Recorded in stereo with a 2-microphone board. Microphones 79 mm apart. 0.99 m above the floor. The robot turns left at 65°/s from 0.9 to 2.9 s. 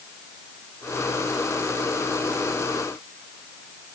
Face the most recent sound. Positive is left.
No sound to turn to.